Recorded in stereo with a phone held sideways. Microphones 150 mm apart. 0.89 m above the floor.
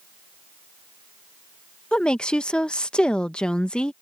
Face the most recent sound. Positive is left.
turn(degrees=5)  # may be behind; listen again after turning